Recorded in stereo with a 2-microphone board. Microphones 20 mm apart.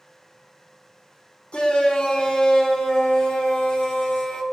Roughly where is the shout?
Left.